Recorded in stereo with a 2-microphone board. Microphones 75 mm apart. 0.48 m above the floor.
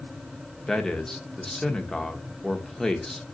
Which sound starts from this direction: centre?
A man speaking, at 0.7 s.